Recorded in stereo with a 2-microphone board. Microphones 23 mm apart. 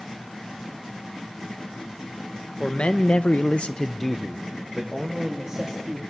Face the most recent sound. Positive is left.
turn(degrees=-25)  # may be behind; listen again after turning